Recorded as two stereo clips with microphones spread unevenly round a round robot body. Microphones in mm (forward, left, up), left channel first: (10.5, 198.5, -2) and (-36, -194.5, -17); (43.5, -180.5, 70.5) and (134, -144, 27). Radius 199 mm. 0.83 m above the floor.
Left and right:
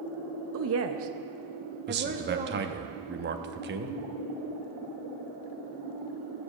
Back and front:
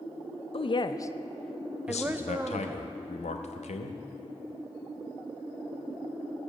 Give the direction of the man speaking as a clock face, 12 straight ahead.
5 o'clock.